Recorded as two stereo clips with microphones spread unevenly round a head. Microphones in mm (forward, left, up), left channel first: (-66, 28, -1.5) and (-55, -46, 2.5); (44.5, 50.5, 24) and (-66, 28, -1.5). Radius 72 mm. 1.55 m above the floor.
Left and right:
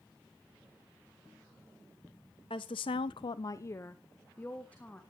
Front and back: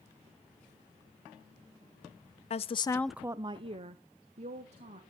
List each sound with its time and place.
2.5 s a woman speaking: 45° left, 0.7 m; by 5.0 s 170° left, 2 m